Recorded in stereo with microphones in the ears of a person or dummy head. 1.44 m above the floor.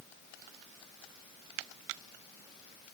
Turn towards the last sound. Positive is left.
No sound to turn to.